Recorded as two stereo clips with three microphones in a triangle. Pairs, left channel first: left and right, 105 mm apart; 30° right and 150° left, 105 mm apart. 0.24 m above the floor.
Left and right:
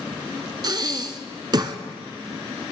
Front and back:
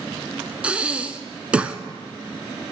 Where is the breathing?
130° right, 0.8 m.